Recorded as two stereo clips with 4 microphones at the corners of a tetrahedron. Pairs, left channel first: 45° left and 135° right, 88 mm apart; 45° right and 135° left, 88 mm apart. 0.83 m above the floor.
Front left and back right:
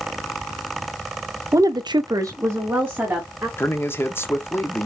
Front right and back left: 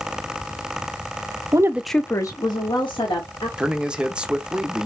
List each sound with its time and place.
1.5 s a woman speaking: 175° left, 0.6 m; by 3.5 s 65° right, 2.0 m
3.6 s a man speaking: 70° left, 0.7 m